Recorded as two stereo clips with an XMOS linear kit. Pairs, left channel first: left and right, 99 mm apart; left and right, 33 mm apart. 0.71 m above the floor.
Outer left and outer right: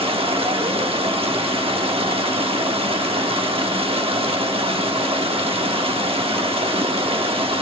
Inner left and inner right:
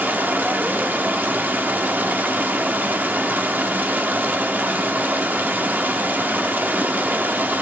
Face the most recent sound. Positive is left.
turn(degrees=-70)  # may be behind; listen again after turning